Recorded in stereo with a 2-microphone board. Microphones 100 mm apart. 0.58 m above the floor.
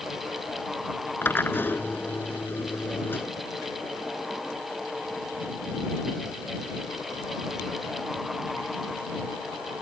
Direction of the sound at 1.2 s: 20° left (ahead or behind).